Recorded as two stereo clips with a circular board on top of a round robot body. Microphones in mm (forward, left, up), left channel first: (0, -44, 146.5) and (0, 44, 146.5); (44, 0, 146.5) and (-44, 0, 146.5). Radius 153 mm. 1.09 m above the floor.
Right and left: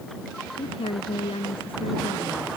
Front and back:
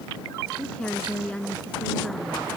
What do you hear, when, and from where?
0.6 s a woman speaking: 80° right